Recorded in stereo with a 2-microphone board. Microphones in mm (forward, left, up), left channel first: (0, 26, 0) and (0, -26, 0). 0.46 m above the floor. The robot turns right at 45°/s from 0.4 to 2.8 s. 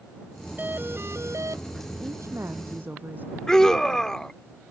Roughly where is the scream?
Centre.